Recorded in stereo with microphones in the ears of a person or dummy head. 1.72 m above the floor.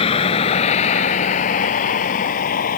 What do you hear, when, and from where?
0.0 s a vehicle: 30° left (ahead or behind); by 2.8 s 45° left (ahead or behind)